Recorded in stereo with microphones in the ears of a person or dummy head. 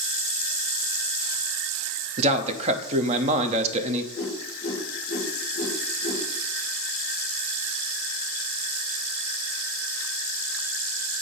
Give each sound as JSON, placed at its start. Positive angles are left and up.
{"t": 2.2, "sound": "a man speaking", "side_deg": -40, "distance_m": 0.7}
{"t": 4.1, "sound": "a whoosh", "side_deg": 35, "distance_m": 5.0}